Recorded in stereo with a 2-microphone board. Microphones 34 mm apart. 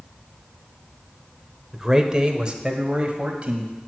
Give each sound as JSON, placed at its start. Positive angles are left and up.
{"t": 1.7, "sound": "a man speaking", "side_deg": -10, "distance_m": 0.8}